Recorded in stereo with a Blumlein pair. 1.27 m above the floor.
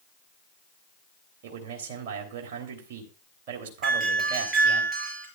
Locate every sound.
1.4 s a man speaking: 50° right, 3 m
3.8 s a doorbell: 15° right, 6 m